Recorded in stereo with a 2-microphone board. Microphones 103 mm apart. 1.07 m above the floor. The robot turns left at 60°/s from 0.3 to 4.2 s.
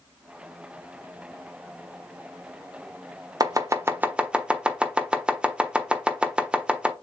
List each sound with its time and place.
3.4 s chopping: 40° right (ahead or behind), 0.8 m; by 6.9 s 10° right (ahead or behind), 0.8 m